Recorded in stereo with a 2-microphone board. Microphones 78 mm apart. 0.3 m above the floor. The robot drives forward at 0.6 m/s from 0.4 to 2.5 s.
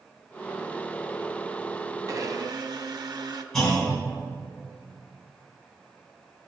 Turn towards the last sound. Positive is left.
turn(degrees=5)  # may be behind; listen again after turning